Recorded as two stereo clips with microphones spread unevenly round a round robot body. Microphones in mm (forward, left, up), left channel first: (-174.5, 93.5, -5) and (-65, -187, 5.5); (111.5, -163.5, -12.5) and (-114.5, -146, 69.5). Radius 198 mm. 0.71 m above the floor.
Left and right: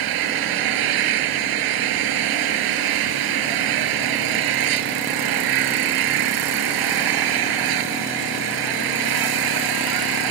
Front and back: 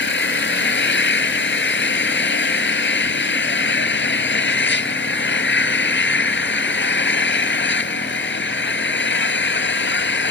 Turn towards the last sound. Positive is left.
turn(degrees=-45)